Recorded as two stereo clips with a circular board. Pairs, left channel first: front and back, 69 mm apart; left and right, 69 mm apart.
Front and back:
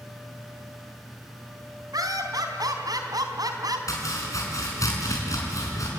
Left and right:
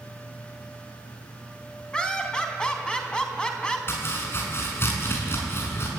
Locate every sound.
1.9 s laughter: 170° left, 3.5 m
3.9 s chopping: 35° left, 5 m